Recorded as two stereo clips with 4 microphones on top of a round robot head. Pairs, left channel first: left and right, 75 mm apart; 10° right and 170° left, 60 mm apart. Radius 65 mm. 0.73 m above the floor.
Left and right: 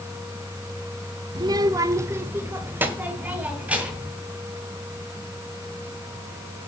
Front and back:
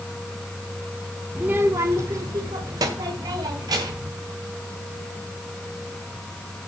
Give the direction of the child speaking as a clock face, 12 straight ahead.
4 o'clock.